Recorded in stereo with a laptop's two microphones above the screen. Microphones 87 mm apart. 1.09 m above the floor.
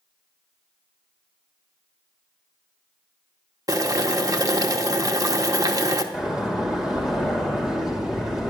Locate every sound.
3.7 s boiling: 45° right (ahead or behind), 0.9 m
6.1 s a door slam: 5° right (ahead or behind), 2.5 m